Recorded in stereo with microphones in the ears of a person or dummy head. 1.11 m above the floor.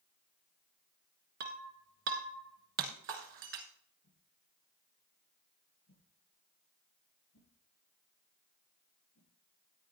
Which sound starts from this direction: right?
Breaking glass, at 1.4 s.